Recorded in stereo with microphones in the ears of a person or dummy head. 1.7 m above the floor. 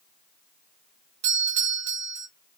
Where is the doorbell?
65° right (ahead or behind), 1.0 m.